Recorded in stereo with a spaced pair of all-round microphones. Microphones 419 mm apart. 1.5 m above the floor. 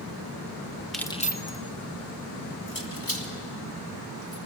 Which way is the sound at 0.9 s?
Centre (ahead or behind).